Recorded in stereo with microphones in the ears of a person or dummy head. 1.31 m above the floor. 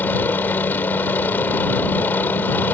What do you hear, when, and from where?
0.0 s a helicopter: 10° left (ahead or behind)